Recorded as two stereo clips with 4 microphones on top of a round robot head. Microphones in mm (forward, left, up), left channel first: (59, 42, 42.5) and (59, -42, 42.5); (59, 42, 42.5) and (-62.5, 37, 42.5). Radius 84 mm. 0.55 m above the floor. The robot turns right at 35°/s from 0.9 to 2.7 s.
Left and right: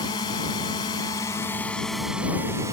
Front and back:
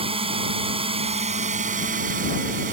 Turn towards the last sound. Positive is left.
turn(degrees=-155)